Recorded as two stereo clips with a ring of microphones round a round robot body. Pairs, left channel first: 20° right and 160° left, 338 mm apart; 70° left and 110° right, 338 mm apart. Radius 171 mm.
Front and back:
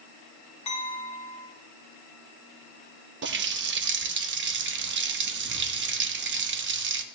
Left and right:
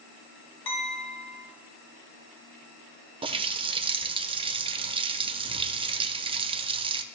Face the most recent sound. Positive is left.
turn(degrees=-175)